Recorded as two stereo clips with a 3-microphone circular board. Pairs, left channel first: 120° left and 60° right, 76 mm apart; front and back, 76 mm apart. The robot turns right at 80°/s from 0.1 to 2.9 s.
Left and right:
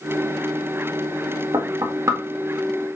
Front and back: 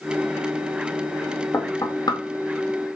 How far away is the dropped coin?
I don't hear a dropped coin.